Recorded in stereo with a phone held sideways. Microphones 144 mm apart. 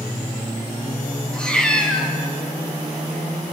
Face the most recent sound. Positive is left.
turn(degrees=5)  # may be behind; listen again after turning